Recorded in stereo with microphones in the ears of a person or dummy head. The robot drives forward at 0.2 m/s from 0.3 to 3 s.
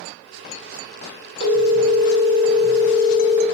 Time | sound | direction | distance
1.4 | a phone ringing | 60° right (ahead or behind) | 1.5 m